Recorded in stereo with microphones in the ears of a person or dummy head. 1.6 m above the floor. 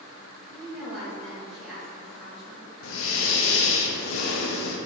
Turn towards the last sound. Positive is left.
turn(degrees=70)  # may be behind; listen again after turning